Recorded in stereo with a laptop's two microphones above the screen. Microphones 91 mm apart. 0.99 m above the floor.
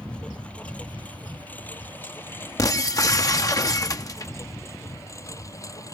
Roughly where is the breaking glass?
Left.